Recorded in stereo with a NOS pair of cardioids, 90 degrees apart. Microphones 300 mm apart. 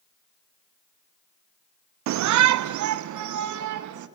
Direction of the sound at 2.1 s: 65° right.